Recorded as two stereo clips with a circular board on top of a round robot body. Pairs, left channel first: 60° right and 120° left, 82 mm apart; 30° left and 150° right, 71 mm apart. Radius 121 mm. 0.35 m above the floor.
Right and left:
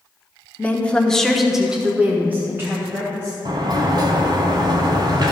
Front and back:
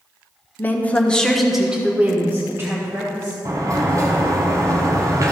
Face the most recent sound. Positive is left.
turn(degrees=160)